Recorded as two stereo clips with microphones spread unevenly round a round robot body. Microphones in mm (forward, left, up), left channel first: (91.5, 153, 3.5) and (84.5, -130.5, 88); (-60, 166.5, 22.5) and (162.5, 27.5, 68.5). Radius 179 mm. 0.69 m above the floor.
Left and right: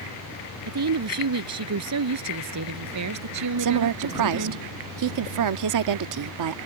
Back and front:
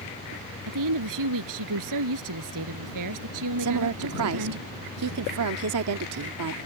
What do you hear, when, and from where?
0.7 s a woman speaking: 60° right; by 4.6 s 70° right
3.6 s a woman speaking: 70° right